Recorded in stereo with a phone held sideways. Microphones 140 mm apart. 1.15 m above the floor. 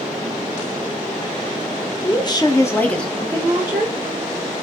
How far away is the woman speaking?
About 0.8 m.